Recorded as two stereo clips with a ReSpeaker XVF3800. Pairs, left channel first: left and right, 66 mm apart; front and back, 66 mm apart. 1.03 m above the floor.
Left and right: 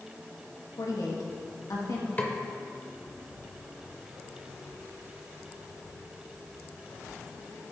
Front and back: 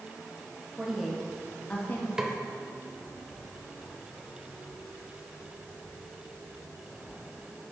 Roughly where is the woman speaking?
Left.